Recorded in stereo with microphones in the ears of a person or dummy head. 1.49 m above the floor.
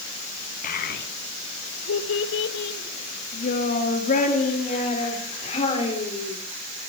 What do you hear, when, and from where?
0.6 s a child speaking: 50° left (ahead or behind), 1.3 m; by 6.4 s 30° left (ahead or behind), 4 m